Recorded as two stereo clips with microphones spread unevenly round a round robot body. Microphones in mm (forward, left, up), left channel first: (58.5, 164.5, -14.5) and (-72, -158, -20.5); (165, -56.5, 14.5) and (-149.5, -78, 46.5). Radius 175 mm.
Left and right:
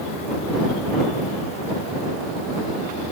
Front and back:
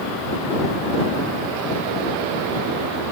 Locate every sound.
Only background noise.